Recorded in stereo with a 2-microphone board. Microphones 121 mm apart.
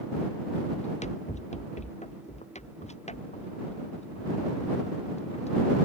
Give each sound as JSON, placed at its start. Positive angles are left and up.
{"t": 0.8, "sound": "running footsteps", "side_deg": 80}